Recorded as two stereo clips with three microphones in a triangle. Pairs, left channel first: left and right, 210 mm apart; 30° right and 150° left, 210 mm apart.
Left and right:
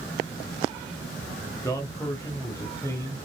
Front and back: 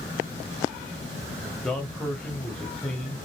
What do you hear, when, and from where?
1.6 s a man speaking: 45° left, 1.0 m